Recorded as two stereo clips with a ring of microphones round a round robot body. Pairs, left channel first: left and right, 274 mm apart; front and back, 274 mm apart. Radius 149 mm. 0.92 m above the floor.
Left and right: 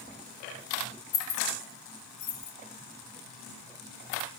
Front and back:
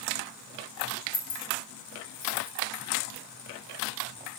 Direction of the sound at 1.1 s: 55° left.